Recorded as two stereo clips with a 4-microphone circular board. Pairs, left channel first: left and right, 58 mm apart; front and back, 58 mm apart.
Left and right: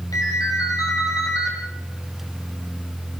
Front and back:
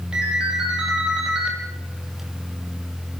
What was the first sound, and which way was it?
A ringtone, 105° left.